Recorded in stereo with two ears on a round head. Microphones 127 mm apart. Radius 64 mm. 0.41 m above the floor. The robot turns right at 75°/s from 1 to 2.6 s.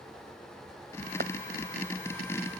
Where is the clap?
65° right (ahead or behind); by 1.3 s 60° right (ahead or behind).